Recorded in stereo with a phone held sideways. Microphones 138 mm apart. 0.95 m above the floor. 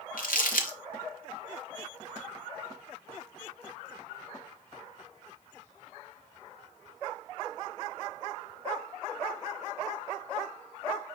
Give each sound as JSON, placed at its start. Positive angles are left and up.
{"t": 0.2, "sound": "crumpling", "side_deg": 80, "distance_m": 0.9}